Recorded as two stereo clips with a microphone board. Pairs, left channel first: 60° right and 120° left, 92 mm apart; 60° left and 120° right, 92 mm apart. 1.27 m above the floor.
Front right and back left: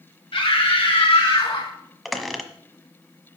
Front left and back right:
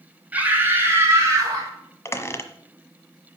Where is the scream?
45° right, 3 m; by 1.7 s 70° right, 4.5 m.